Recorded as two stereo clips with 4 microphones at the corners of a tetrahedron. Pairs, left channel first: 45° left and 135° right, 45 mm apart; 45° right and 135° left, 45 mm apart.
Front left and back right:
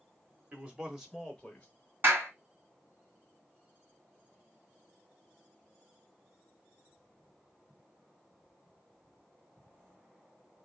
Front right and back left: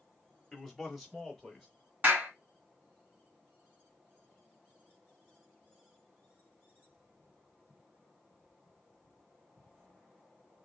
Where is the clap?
175° right, 2 m.